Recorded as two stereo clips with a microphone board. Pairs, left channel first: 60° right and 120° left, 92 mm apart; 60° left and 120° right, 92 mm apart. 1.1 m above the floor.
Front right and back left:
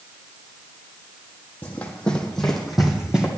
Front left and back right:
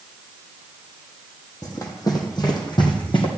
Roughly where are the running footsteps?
Ahead.